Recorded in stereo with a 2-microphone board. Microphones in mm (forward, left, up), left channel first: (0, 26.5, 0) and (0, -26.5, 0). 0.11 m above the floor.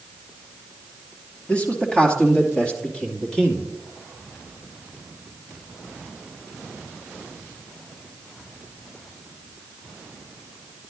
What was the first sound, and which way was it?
A man speaking, 25° left (ahead or behind).